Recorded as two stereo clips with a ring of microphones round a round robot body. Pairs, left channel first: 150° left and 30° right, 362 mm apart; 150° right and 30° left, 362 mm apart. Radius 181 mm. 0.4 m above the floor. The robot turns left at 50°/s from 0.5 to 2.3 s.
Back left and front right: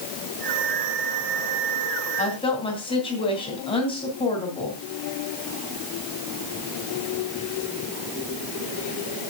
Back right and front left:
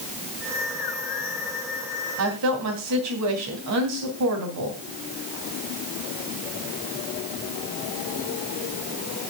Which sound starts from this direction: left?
A woman speaking, at 2.2 s.